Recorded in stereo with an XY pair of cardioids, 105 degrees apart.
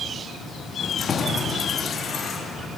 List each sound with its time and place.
0.8 s keys jangling: 40° left, 2 m; by 2.7 s 45° left, 4.5 m